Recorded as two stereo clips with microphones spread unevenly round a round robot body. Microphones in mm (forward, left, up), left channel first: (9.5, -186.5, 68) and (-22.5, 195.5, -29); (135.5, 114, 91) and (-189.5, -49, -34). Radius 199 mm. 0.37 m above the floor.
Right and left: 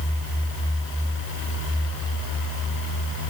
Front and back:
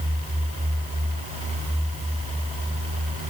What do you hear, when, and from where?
Only background noise.